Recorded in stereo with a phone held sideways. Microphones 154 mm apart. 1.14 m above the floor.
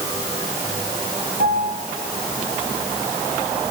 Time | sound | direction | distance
1.4 | a piano | 80° right | 7 m